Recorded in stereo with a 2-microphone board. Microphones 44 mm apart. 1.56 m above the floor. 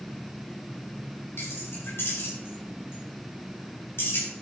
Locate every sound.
1.4 s keys jangling: 60° left (ahead or behind), 6 m